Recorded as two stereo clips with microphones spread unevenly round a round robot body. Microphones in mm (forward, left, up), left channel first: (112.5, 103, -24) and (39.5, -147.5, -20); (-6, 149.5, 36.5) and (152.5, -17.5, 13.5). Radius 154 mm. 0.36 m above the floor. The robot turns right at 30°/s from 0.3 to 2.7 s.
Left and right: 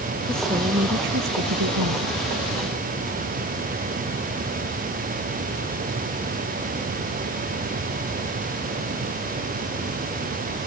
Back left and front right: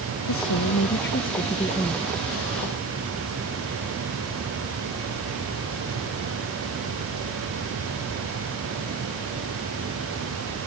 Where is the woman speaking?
170° left; by 2.2 s 135° right.